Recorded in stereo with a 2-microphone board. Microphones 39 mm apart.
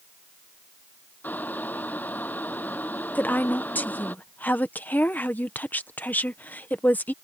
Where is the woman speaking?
50° left (ahead or behind).